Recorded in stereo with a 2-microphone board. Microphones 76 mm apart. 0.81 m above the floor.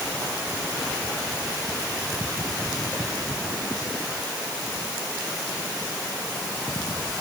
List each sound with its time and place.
Only background noise.